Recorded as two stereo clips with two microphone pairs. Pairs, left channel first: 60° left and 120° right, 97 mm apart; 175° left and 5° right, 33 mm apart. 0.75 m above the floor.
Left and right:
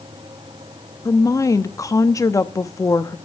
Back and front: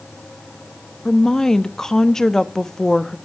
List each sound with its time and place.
1.1 s a woman speaking: 105° left, 0.7 m